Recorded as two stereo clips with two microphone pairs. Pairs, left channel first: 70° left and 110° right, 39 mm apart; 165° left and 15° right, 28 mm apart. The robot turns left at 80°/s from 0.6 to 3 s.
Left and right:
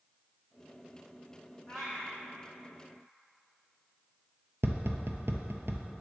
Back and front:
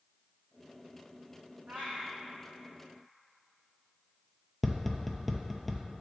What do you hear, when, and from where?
1.7 s a cat meowing: 5° right, 1.3 m; by 2.2 s 45° right, 1.3 m
4.6 s tapping: 110° right, 0.6 m